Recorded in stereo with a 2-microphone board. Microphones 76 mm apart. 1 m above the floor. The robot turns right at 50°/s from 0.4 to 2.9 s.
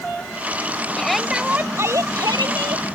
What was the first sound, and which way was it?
A shout, 170° left.